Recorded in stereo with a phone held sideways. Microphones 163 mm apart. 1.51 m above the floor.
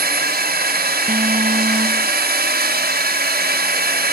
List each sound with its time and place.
0.0 s a drone: 75° right (ahead or behind)
1.1 s an alarm: 50° right (ahead or behind)